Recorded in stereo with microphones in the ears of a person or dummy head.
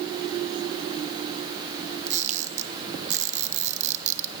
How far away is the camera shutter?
About 1.8 m.